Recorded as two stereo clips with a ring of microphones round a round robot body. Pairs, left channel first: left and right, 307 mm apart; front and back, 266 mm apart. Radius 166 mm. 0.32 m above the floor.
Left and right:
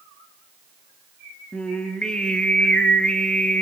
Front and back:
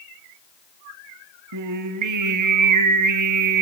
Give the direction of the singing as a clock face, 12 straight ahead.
6 o'clock.